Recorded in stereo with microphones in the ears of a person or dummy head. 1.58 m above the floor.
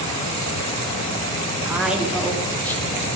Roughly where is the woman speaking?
Centre.